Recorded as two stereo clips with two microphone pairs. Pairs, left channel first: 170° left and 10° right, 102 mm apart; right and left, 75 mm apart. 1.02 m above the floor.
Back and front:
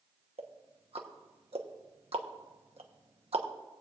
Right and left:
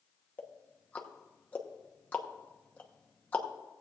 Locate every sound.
0.4 s ticking: 20° right, 1.0 m